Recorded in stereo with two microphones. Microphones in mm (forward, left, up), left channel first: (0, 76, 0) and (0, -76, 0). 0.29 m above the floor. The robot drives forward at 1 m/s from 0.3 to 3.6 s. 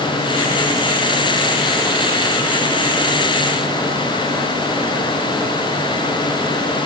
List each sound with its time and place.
Only background noise.